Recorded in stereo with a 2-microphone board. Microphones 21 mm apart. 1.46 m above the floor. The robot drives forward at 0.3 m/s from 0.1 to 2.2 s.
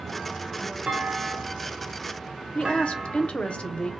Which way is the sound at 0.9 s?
75° right (ahead or behind).